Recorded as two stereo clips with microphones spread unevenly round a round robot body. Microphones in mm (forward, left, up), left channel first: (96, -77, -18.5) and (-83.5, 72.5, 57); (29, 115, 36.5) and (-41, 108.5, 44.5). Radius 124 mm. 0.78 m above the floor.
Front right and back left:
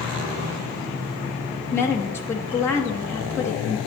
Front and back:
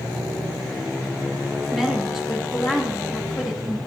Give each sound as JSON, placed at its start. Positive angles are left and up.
{"t": 1.7, "sound": "a woman speaking", "azimuth_deg": -80, "distance_m": 1.1}